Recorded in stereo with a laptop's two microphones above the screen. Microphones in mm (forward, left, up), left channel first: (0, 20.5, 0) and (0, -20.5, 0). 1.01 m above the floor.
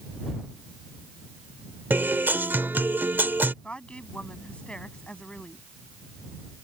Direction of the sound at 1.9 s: 55° right (ahead or behind).